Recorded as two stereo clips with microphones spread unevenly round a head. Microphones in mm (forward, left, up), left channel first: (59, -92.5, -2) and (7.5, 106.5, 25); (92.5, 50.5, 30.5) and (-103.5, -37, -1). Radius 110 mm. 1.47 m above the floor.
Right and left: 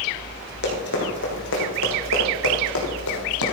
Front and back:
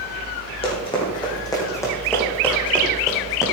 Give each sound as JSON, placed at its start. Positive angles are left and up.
{"t": 0.6, "sound": "running footsteps", "azimuth_deg": -35, "distance_m": 4.0}